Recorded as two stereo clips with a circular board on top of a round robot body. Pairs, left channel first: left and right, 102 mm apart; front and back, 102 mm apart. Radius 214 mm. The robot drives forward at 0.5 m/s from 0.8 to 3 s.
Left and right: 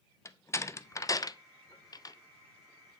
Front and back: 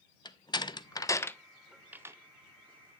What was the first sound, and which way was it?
A door slam, 35° left.